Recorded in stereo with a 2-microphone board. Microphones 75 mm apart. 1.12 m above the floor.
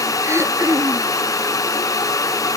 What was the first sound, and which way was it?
Throat clearing, 40° right (ahead or behind).